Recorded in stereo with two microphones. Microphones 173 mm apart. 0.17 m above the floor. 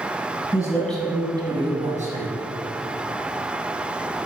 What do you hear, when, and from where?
0.5 s a man speaking: 25° left (ahead or behind), 1.4 m; by 2.3 s 55° right (ahead or behind), 2 m